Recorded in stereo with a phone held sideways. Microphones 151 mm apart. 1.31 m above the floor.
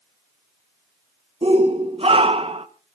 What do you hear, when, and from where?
1.4 s a shout: 40° right (ahead or behind), 1.3 m